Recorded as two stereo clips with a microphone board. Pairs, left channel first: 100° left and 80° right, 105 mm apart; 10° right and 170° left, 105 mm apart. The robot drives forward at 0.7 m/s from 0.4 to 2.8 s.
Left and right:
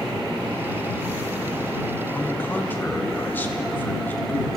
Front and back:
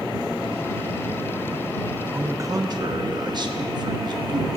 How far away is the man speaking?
About 0.8 m.